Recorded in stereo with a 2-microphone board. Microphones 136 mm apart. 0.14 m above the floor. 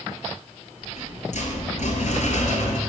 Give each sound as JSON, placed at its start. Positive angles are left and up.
{"t": 0.8, "sound": "a rattle", "side_deg": 65, "distance_m": 0.9}